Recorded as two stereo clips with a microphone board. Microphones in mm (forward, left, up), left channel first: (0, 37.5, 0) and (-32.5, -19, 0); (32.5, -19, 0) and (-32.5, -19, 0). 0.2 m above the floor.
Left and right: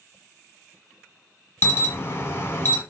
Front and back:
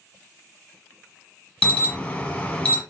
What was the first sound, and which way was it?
An alarm, 60° left.